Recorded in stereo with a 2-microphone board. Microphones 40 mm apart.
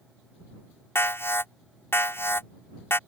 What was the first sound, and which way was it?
An alarm, 70° left (ahead or behind).